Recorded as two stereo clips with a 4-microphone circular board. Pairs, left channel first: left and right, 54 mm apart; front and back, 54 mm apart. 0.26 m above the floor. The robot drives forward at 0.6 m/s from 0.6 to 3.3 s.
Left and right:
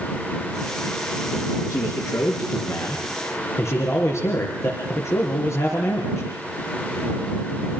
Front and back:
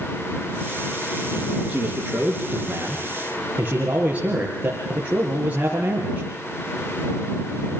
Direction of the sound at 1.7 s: 105° left.